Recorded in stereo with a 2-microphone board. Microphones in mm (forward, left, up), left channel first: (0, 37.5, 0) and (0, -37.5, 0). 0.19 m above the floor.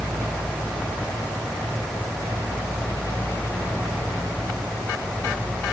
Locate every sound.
Only background noise.